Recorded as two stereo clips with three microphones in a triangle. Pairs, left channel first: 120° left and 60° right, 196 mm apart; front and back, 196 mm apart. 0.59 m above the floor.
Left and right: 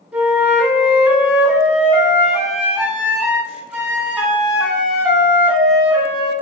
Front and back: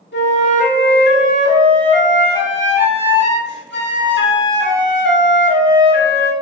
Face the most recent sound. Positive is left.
turn(degrees=25)